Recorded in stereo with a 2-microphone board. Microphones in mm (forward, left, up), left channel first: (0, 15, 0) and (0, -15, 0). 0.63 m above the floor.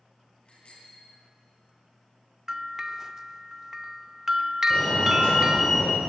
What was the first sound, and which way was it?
A bicycle bell, 40° left (ahead or behind).